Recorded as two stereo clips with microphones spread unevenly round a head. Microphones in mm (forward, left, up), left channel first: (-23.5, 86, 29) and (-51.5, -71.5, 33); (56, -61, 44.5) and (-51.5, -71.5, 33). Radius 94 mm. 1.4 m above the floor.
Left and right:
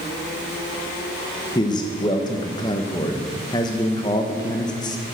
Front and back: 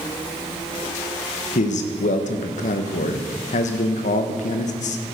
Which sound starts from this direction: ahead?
A man speaking, at 1.6 s.